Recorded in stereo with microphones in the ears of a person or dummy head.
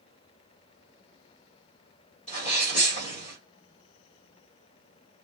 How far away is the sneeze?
About 1.5 m.